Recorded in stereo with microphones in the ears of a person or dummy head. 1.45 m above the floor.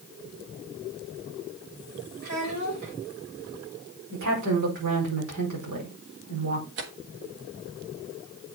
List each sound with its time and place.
2.2 s a child speaking: 65° right (ahead or behind), 4 m
4.1 s a woman speaking: 75° right (ahead or behind), 5 m
6.8 s tearing paper: 60° right (ahead or behind), 1.4 m